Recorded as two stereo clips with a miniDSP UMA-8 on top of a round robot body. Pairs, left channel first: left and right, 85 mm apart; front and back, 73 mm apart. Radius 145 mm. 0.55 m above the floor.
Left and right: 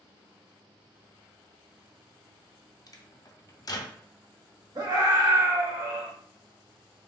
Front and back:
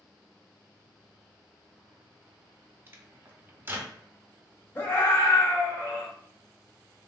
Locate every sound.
2.9 s a microwave: 125° left, 0.6 m
4.8 s a scream: 55° right, 1.6 m